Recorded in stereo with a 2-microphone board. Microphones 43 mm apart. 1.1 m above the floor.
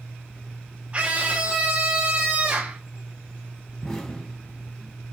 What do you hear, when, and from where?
0.9 s a scream: 30° right (ahead or behind), 0.9 m
3.8 s an explosion: 10° left (ahead or behind), 3 m